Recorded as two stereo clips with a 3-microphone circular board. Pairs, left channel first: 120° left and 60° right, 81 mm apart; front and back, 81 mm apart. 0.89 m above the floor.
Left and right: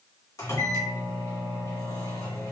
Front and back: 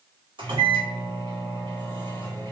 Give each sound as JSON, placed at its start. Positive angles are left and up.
{"t": 0.4, "sound": "a microwave", "azimuth_deg": 170, "distance_m": 1.6}